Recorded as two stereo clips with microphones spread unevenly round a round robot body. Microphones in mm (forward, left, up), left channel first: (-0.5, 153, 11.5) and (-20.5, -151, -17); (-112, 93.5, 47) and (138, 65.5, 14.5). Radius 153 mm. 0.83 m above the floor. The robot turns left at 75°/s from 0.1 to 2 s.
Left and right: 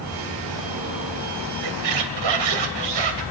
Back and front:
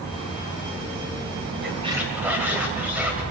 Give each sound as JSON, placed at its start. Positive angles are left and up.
{"t": 1.6, "sound": "a squeak", "azimuth_deg": -65, "distance_m": 2.5}